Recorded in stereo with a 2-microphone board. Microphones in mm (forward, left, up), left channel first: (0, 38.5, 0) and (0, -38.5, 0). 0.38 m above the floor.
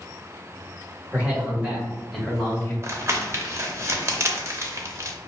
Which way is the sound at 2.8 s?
35° right (ahead or behind).